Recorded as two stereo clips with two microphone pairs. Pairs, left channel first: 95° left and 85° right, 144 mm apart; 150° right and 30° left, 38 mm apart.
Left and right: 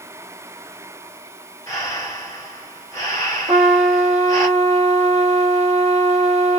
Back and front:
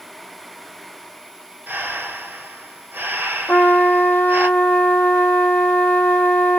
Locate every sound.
1.7 s breathing: 30° left, 1.1 m
3.5 s a trumpet: 125° right, 0.9 m